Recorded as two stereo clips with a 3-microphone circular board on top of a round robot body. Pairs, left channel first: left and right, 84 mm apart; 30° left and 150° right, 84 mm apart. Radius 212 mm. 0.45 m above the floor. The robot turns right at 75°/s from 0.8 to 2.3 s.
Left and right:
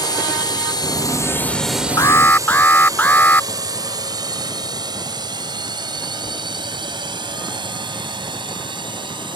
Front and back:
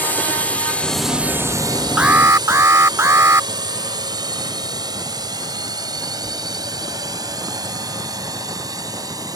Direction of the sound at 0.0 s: 95° left.